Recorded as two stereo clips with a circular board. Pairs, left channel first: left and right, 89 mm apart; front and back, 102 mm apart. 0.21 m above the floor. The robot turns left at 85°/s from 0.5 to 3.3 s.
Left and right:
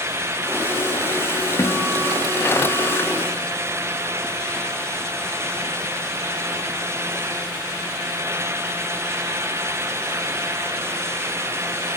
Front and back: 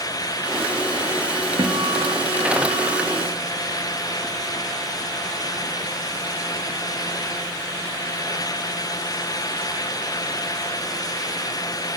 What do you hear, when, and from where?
1.6 s a guitar: 140° left, 4.5 m; by 3.1 s 10° left, 4.5 m